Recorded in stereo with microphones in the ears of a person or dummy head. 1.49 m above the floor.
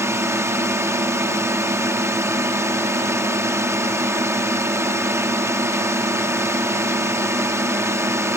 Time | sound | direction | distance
0.0 | a drone | 15° right (ahead or behind) | ?